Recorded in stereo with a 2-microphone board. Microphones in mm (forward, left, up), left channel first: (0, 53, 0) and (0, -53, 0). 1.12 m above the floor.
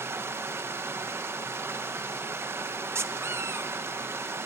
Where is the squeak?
25° right (ahead or behind), 0.7 m.